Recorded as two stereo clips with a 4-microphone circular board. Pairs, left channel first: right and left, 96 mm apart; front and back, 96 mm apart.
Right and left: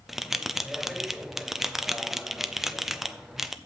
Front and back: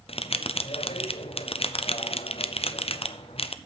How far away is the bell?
About 0.5 m.